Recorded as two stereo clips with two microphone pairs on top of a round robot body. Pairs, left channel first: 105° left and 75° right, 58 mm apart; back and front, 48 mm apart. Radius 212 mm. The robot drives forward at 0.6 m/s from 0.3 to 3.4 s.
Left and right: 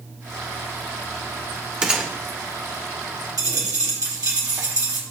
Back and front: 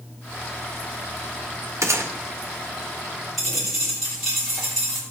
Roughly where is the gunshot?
Ahead.